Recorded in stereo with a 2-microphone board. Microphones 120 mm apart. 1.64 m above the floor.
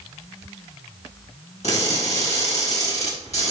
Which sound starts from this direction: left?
Crushing, at 1.6 s.